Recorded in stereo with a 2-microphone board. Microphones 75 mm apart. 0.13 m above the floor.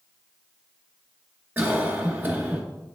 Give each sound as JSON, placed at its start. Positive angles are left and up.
{"t": 1.6, "sound": "a cough", "side_deg": -20, "distance_m": 2.0}